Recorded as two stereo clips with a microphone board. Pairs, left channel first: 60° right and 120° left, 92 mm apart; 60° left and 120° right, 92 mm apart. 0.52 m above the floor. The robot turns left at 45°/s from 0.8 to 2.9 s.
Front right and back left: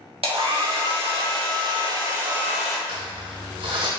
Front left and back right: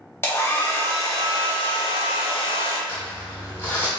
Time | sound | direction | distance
0.2 | a hair dryer | 120° left | 0.7 m
2.9 | crumpling | 135° left | 1.0 m